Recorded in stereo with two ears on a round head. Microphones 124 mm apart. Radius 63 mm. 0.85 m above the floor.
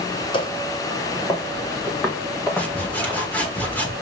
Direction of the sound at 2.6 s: 10° left (ahead or behind).